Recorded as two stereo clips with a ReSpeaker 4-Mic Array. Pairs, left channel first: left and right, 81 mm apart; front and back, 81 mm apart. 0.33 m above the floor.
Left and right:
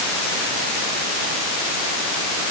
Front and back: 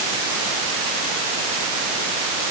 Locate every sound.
Only background noise.